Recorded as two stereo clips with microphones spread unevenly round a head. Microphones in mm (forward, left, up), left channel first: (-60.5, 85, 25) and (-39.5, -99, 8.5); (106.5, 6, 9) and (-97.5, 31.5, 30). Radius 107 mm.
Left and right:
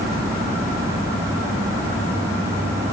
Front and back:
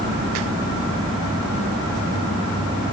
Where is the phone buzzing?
I don't hear a phone buzzing.